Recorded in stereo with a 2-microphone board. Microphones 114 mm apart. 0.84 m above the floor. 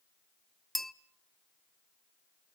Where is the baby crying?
I don't hear a baby crying.